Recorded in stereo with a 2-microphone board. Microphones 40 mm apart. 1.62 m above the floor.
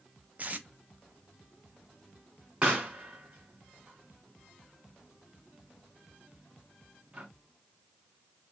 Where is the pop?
25° right (ahead or behind), 3 m.